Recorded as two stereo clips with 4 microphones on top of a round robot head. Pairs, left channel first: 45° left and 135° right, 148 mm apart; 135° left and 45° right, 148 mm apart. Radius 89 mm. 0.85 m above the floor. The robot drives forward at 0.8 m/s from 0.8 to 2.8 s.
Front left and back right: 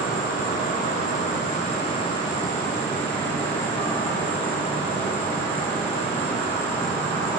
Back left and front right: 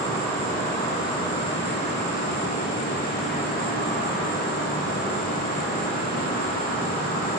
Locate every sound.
0.0 s an insect: 65° left, 1.8 m; by 7.4 s 120° left, 1.9 m